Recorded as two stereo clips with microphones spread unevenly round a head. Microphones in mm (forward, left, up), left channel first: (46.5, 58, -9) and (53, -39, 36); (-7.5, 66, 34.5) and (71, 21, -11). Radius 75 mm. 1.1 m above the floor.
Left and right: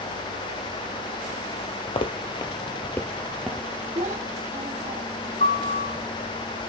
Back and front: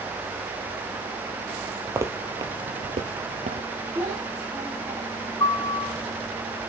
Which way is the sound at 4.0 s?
90° right.